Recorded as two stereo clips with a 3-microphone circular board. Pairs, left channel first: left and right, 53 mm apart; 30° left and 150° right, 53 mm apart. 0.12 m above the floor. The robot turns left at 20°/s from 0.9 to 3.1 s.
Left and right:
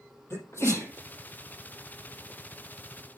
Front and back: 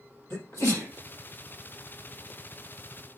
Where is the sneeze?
55° left, 4 m.